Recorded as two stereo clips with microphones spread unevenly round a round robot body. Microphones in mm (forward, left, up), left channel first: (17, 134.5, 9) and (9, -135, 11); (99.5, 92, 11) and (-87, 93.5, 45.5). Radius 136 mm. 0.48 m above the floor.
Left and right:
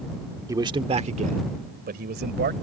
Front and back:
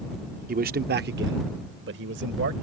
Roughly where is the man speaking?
Behind.